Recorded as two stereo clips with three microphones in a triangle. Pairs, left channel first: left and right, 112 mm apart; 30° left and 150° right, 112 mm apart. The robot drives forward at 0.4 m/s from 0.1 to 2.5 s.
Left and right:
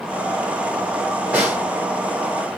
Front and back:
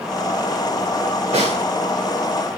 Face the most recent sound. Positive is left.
turn(degrees=-165)